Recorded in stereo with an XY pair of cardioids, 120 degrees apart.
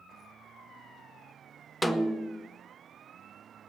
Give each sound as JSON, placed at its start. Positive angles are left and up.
{"t": 1.8, "sound": "a snare drum", "azimuth_deg": 0, "distance_m": 1.0}